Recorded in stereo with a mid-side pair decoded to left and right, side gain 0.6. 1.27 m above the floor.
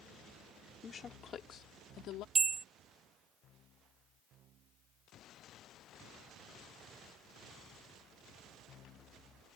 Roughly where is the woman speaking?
Ahead left.